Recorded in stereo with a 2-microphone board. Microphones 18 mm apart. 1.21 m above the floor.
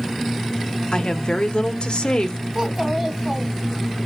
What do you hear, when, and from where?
0.9 s a woman speaking: 60° left (ahead or behind), 0.6 m
2.5 s a child speaking: 25° right (ahead or behind), 3.5 m